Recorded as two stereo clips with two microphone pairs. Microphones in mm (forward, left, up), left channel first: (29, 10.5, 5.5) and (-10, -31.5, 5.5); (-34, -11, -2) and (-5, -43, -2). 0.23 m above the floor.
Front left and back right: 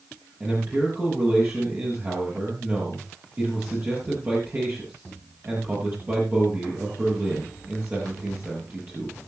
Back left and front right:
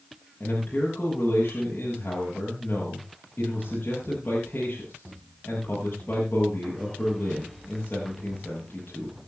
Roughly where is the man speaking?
Behind.